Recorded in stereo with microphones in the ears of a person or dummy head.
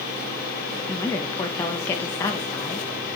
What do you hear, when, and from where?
0.9 s a woman speaking: 10° left (ahead or behind), 0.9 m